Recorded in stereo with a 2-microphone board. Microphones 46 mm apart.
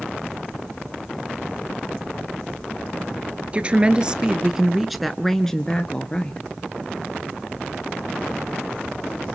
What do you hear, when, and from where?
3.5 s a woman speaking: 25° right (ahead or behind), 1.5 m; by 6.5 s 25° left (ahead or behind), 1.5 m